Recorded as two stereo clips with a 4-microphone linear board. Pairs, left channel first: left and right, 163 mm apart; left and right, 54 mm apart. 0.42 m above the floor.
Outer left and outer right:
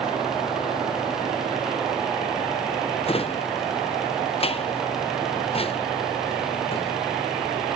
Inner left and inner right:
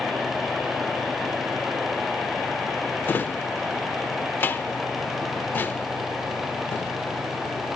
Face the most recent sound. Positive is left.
turn(degrees=35)  # may be behind; listen again after turning